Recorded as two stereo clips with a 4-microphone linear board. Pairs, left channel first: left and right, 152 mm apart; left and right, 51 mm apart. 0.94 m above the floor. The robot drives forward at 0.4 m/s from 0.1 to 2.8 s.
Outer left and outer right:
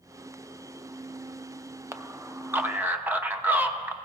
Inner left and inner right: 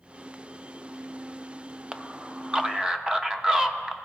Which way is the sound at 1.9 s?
20° right (ahead or behind).